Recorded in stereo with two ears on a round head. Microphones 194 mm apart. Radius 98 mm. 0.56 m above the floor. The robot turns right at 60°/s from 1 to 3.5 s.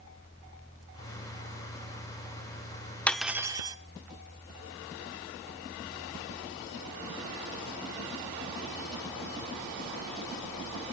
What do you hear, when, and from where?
3.1 s cutlery clinking: 5° left (ahead or behind), 0.7 m; by 3.8 s 15° right (ahead or behind), 0.7 m